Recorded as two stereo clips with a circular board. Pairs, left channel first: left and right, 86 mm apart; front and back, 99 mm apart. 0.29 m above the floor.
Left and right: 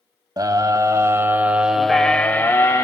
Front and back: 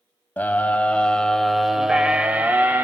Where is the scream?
65° right, 1.3 m; by 2.9 s 120° left, 1.1 m.